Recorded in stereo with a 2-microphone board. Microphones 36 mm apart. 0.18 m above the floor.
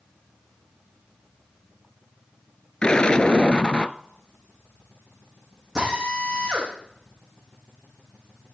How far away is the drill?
About 10 m.